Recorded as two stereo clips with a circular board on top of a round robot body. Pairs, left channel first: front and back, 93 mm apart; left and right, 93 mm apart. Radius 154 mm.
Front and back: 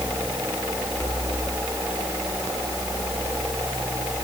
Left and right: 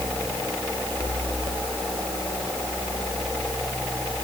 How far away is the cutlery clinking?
No cutlery clinking in this recording.